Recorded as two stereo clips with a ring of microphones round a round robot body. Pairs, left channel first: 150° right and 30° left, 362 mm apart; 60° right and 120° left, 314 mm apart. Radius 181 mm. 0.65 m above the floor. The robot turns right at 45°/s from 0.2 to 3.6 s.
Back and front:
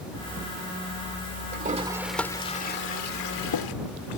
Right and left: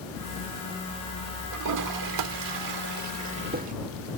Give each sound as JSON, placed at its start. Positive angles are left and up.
{"t": 1.5, "sound": "a toilet flushing", "azimuth_deg": 95}